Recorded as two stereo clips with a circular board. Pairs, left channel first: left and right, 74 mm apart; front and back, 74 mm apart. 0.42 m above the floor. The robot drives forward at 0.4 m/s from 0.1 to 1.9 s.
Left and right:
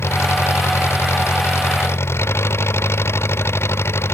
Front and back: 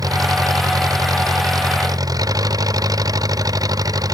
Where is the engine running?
145° left.